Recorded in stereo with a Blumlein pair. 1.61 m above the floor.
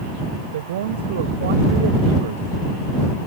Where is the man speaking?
55° right.